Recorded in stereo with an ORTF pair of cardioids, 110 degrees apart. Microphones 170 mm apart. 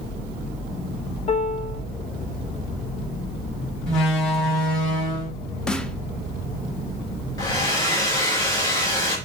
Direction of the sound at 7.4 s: 20° left.